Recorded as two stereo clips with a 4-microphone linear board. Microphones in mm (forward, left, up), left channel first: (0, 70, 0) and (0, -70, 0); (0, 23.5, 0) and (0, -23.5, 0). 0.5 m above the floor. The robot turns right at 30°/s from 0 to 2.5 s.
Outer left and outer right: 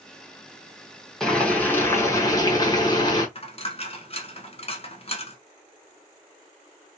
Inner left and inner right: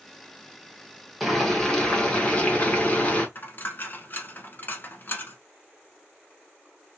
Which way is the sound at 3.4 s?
45° left (ahead or behind).